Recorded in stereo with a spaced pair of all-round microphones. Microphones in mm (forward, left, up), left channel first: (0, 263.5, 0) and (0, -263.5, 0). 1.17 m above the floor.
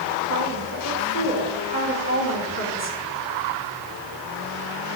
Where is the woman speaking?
30° left (ahead or behind), 3.5 m.